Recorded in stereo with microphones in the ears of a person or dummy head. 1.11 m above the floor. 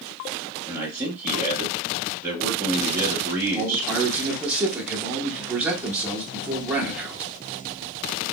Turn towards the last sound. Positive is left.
turn(degrees=-10)  # may be behind; listen again after turning